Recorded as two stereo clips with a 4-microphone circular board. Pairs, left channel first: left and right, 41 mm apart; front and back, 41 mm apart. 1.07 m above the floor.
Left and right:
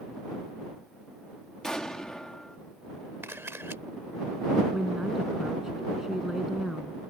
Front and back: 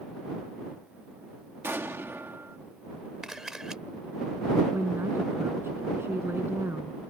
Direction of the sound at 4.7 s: 170° right.